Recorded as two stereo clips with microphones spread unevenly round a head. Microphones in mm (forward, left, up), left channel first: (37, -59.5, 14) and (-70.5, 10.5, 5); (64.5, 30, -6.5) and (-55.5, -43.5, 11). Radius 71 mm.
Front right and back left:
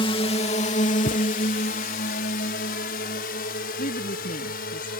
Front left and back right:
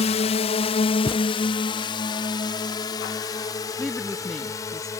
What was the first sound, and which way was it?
A drone, 15° left.